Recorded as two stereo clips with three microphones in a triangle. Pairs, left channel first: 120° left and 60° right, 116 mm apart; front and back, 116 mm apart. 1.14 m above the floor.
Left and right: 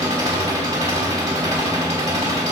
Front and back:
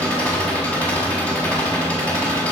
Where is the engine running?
75° right, 1.7 m.